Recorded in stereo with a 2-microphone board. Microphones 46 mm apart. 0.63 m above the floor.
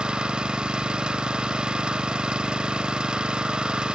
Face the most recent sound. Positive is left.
turn(degrees=-20)  # may be behind; listen again after turning